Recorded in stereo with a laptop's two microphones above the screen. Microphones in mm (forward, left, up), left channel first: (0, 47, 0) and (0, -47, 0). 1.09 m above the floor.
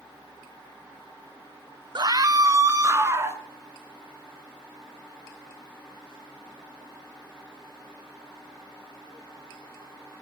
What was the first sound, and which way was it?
A scream, 50° right (ahead or behind).